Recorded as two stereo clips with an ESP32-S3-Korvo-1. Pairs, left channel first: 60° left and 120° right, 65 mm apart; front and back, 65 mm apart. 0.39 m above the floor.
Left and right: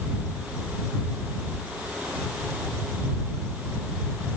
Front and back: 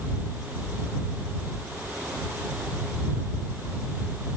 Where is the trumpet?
No trumpet in this recording.